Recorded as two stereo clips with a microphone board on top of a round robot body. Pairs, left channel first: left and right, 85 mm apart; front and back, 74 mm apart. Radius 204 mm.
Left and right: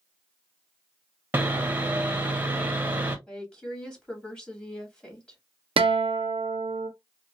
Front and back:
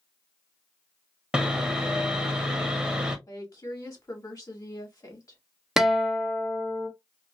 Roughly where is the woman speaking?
Ahead.